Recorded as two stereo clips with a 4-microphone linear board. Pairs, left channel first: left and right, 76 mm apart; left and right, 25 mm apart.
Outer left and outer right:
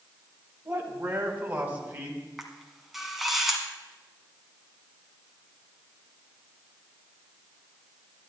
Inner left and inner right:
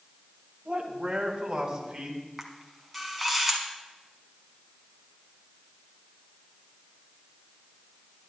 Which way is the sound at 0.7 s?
25° right (ahead or behind).